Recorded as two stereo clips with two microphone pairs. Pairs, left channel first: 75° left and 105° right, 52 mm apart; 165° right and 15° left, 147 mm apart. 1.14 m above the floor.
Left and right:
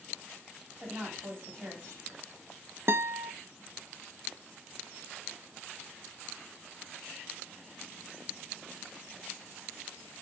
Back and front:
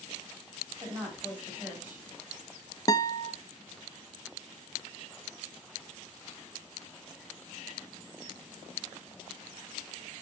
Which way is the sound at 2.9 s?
110° right.